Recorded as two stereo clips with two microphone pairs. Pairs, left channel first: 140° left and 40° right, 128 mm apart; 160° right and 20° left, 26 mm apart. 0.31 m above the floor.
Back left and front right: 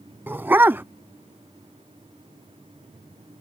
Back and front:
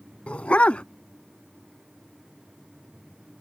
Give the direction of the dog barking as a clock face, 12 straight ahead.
4 o'clock.